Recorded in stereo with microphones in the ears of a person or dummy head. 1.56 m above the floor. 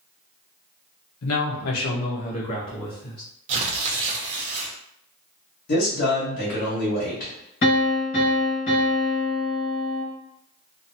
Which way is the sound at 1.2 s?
75° left (ahead or behind).